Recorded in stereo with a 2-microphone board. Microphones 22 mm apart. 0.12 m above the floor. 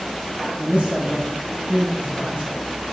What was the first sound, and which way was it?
A man speaking, 45° right (ahead or behind).